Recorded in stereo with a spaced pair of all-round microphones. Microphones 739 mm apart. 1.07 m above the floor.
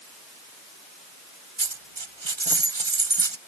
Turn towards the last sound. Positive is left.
turn(degrees=-35)  # may be behind; listen again after turning